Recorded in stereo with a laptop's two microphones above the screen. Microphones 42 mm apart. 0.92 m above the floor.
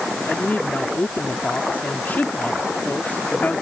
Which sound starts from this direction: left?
A woman speaking, at 0.3 s.